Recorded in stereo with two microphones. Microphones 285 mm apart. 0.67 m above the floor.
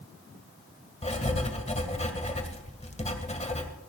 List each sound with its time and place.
1.0 s writing: 25° left (ahead or behind), 1.8 m